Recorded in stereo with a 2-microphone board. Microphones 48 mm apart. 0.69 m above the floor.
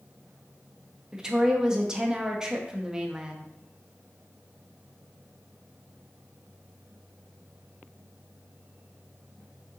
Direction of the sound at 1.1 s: 10° right (ahead or behind).